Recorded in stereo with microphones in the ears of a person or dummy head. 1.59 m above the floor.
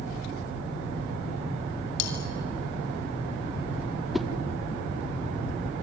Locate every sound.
2.0 s cutlery clinking: 80° left, 4 m
4.1 s a whoosh: 5° right (ahead or behind), 0.8 m